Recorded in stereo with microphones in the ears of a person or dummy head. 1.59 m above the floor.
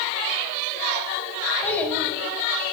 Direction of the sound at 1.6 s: 10° left (ahead or behind).